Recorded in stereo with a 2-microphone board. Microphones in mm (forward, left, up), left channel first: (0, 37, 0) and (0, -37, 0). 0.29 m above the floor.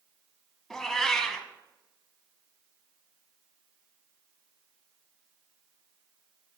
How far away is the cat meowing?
About 1.0 m.